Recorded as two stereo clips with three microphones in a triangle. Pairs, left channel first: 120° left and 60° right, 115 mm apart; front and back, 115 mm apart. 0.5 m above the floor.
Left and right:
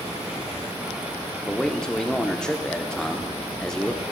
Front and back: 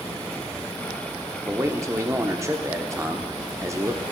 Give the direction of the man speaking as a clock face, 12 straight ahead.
5 o'clock.